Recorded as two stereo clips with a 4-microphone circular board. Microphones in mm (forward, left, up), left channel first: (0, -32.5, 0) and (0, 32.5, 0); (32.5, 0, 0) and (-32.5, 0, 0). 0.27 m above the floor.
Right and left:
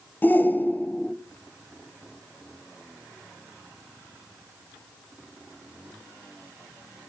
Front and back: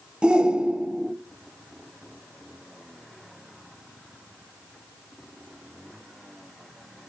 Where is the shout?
120° right, 1.0 m.